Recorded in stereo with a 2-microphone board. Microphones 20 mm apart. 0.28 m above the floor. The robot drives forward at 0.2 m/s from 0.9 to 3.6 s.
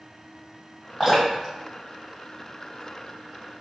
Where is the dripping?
10° right (ahead or behind), 1.3 m.